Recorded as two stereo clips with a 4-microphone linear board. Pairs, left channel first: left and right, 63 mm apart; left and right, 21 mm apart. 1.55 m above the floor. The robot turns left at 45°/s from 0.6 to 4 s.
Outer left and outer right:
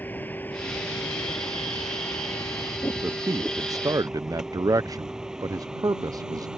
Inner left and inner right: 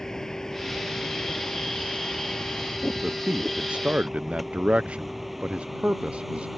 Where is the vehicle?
30° left (ahead or behind); by 6.6 s 10° right (ahead or behind).